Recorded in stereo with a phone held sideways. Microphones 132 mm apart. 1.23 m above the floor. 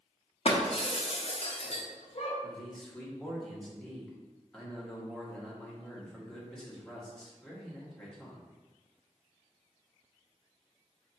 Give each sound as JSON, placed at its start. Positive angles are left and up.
{"t": 0.5, "sound": "breaking glass", "side_deg": 50, "distance_m": 0.8}
{"t": 2.4, "sound": "a man speaking", "side_deg": 5, "distance_m": 1.5}